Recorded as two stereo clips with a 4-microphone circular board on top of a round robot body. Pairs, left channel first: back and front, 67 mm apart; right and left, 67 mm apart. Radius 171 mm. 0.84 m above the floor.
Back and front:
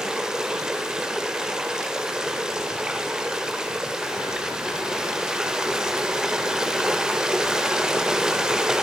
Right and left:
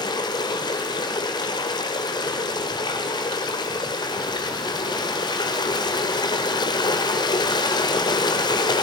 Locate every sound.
0.0 s running water: 80° right, 1.6 m